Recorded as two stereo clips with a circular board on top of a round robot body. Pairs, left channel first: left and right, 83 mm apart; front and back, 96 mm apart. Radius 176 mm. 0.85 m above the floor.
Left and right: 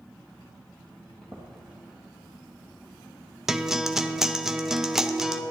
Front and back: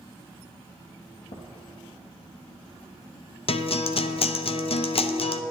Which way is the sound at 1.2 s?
10° left.